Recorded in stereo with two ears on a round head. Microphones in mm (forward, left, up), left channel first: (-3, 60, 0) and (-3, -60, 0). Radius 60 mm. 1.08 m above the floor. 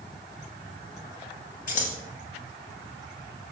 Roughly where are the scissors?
Left.